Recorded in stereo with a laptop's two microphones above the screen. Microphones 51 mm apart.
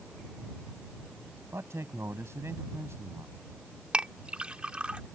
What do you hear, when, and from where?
1.5 s a man speaking: 70° right (ahead or behind)
3.9 s a clink: 25° right (ahead or behind)